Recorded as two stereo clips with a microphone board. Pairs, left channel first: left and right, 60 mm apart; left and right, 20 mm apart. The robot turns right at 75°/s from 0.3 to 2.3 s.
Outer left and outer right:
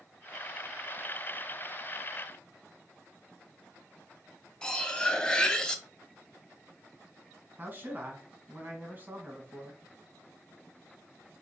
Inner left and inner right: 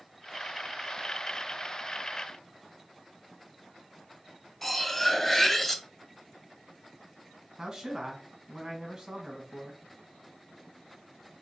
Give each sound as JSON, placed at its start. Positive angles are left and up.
{"t": 4.6, "sound": "cutlery clinking", "side_deg": 15, "distance_m": 0.6}
{"t": 7.6, "sound": "a man speaking", "side_deg": -35, "distance_m": 1.4}